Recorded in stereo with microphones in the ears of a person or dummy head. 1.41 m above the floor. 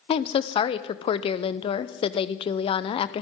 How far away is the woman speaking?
About 0.8 m.